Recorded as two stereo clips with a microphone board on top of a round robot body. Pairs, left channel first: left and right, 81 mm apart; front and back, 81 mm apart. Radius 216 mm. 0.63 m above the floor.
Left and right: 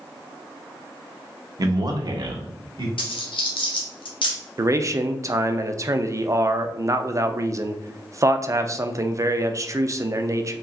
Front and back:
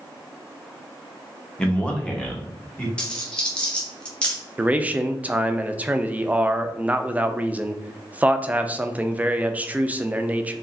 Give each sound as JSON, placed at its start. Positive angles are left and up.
{"t": 1.6, "sound": "a man speaking", "azimuth_deg": -75, "distance_m": 1.1}
{"t": 3.0, "sound": "a dropped coin", "azimuth_deg": 80, "distance_m": 0.9}
{"t": 4.6, "sound": "a man speaking", "azimuth_deg": -115, "distance_m": 0.7}